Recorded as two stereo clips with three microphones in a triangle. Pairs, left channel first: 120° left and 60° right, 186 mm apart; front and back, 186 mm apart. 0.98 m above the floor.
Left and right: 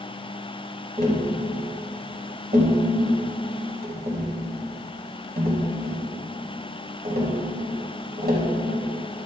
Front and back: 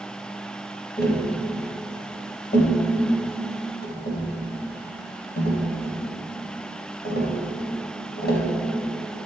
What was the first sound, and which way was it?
Tapping, 30° right.